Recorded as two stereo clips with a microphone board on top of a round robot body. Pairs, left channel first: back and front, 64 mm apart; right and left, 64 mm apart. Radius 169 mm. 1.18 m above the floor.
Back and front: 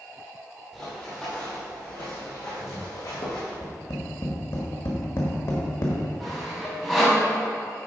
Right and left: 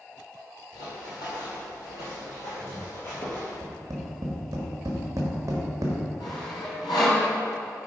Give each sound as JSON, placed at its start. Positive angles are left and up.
{"t": 0.7, "sound": "running footsteps", "azimuth_deg": -95, "distance_m": 2.5}
{"t": 3.6, "sound": "tapping", "azimuth_deg": 130, "distance_m": 1.1}
{"t": 6.2, "sound": "sawing", "azimuth_deg": -95, "distance_m": 1.9}